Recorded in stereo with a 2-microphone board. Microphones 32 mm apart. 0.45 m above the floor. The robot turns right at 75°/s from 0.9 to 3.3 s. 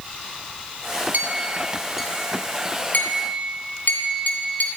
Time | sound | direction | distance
1.1 | a clink | 70° right (ahead or behind) | 2.5 m